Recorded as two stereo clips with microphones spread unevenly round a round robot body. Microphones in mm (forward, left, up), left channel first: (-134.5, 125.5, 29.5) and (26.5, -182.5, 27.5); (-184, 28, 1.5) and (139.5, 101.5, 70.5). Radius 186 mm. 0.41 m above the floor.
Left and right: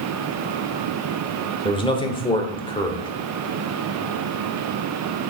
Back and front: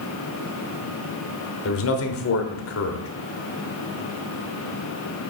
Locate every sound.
1.6 s a man speaking: 170° right, 1.2 m